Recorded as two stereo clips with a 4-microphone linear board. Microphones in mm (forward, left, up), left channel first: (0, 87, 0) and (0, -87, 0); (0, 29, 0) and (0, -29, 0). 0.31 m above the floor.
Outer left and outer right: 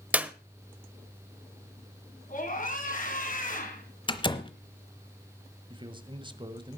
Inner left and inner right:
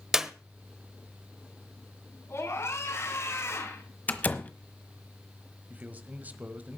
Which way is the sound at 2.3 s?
50° left (ahead or behind).